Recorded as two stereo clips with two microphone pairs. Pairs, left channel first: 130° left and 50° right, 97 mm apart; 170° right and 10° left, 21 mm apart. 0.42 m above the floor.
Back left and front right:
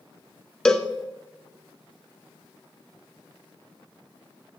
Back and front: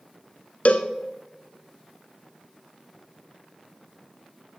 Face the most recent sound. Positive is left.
turn(degrees=-150)